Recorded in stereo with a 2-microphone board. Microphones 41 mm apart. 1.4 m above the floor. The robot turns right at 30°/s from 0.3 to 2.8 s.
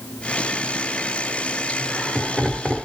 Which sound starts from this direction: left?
Laughter, at 1.7 s.